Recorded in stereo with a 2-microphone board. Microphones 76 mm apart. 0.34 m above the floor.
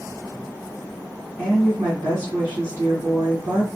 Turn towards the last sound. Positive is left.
turn(degrees=-25)  # may be behind; listen again after turning